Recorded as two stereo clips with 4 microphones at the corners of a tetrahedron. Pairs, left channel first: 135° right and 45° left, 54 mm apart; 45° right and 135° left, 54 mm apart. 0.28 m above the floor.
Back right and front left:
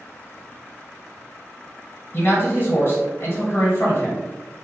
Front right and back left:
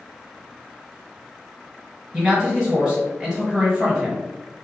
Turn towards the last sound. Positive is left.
turn(degrees=-150)